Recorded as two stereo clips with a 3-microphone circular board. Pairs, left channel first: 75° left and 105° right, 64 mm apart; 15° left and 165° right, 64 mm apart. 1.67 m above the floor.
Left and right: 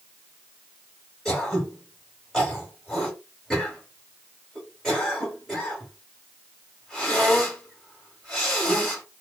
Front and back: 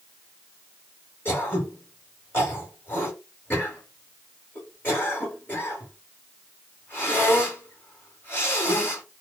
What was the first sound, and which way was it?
Throat clearing, straight ahead.